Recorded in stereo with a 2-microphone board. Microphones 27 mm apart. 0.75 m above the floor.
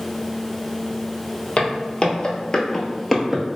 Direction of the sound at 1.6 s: 45° left (ahead or behind).